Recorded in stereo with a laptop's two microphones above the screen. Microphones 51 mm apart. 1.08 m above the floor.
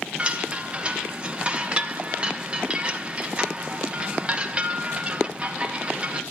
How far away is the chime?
About 1.0 m.